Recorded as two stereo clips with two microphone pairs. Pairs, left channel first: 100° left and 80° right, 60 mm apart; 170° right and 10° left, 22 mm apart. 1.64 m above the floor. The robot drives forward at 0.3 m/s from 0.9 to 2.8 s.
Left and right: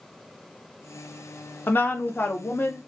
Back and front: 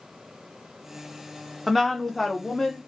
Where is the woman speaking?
90° left, 0.7 m; by 2.8 s 130° left, 0.7 m.